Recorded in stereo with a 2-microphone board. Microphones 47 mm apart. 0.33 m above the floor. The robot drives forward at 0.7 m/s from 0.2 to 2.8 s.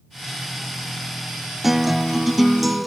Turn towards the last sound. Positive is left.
turn(degrees=-5)  # may be behind; listen again after turning